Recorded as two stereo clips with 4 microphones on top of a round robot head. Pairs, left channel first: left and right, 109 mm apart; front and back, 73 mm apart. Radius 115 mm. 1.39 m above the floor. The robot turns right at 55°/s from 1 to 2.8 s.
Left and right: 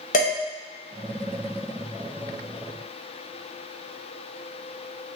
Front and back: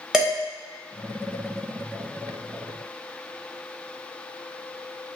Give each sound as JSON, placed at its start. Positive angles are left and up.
{"t": 0.1, "sound": "dishes clattering", "azimuth_deg": 100, "distance_m": 1.3}